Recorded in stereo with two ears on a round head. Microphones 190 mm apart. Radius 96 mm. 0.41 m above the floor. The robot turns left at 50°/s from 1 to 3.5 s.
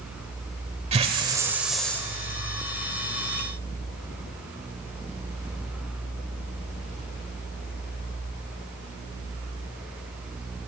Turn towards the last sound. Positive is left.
turn(degrees=95)